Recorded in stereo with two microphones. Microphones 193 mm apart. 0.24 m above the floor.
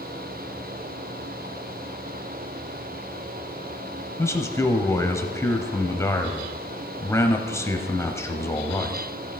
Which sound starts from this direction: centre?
A man speaking, at 4.2 s.